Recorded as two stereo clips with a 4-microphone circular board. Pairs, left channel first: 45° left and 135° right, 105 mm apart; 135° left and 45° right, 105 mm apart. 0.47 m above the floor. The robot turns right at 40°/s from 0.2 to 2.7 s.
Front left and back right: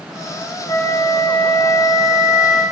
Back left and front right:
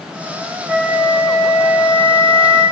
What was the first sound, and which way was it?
A flute, 20° left.